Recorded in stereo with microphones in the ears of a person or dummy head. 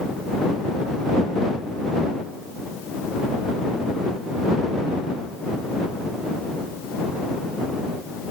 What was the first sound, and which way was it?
Only background noise.